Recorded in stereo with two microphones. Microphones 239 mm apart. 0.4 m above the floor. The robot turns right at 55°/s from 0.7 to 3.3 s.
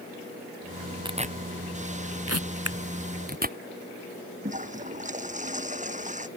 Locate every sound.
1.1 s tearing paper: 20° right (ahead or behind); by 3.6 s 35° right (ahead or behind)
2.6 s scissors: 75° right (ahead or behind); by 2.8 s 70° right (ahead or behind)
4.4 s a toilet flushing: 30° right (ahead or behind)